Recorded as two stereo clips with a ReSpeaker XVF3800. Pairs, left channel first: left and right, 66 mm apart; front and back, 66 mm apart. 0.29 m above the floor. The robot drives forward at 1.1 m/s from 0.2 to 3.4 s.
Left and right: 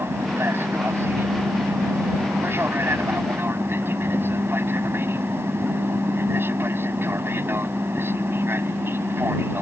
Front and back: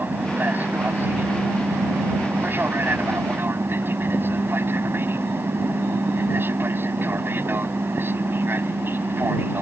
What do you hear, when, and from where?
0.0 s an aircraft: 125° right; by 9.6 s 130° right